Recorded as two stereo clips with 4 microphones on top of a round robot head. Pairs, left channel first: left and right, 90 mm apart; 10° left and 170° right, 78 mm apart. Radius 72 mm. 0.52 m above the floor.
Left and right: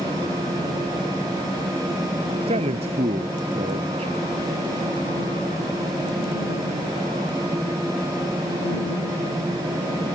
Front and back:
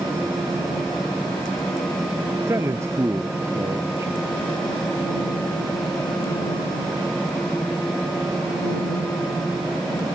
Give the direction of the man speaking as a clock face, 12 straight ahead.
3 o'clock.